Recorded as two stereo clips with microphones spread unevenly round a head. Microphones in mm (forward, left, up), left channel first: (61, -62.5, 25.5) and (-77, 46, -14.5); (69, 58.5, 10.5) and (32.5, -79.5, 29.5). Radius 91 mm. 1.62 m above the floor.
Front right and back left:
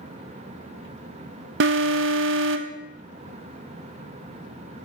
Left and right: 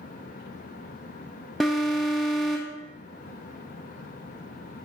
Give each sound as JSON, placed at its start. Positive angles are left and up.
{"t": 1.6, "sound": "an alarm", "azimuth_deg": 165, "distance_m": 0.6}